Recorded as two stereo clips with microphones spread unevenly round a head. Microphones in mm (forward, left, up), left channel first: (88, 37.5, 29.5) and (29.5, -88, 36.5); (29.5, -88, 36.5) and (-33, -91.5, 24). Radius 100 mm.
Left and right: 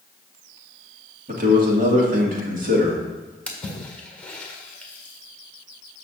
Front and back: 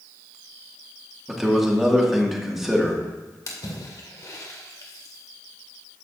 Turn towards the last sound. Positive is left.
turn(degrees=-15)